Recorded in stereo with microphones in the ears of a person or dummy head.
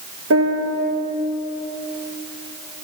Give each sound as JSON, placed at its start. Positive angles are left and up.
{"t": 0.3, "sound": "a piano", "side_deg": -75, "distance_m": 1.6}